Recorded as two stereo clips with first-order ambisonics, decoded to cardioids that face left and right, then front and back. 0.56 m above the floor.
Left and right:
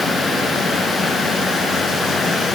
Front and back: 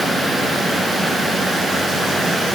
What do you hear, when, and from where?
Only background noise.